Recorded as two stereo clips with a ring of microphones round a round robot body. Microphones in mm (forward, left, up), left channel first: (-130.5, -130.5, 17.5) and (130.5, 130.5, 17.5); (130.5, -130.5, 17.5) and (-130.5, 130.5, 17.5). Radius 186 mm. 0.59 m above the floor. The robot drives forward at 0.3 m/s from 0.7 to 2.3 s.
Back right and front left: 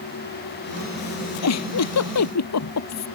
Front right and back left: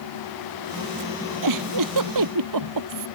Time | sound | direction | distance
1.4 | a giggle | 175° left | ?